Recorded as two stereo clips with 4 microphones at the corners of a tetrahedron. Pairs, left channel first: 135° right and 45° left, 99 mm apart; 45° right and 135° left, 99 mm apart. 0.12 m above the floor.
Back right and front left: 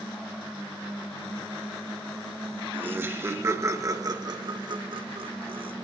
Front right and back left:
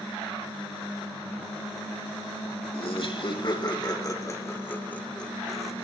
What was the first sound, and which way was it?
Laughter, 25° right.